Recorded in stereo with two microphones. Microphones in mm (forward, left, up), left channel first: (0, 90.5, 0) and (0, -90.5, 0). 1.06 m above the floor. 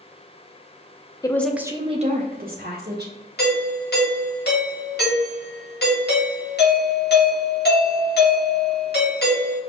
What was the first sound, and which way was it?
A woman speaking, 20° left (ahead or behind).